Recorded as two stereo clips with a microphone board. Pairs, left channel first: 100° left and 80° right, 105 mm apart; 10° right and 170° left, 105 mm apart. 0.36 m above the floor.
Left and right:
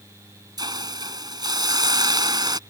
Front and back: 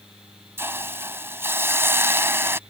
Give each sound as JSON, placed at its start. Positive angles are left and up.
{"t": 0.6, "sound": "a hiss", "azimuth_deg": -125}